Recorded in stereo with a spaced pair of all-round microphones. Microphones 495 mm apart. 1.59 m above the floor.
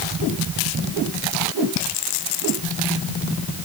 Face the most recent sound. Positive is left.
No sound to turn to.